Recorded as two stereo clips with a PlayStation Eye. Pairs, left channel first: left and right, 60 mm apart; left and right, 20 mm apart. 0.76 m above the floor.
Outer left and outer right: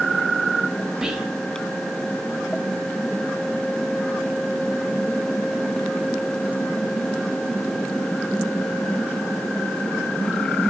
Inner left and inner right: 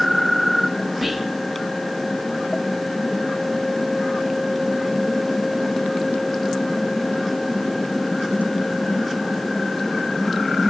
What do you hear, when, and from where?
1.0 s whispering: 10° right (ahead or behind), 0.7 m